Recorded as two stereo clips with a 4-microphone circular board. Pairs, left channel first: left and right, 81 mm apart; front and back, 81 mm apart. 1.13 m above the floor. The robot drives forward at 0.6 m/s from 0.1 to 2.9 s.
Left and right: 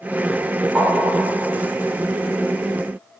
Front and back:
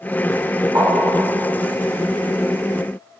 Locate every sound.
0.8 s tapping: 170° left, 1.1 m; by 1.5 s 175° left, 1.5 m